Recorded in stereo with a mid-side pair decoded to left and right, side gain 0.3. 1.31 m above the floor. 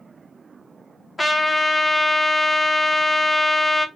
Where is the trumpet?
25° left, 1.2 m.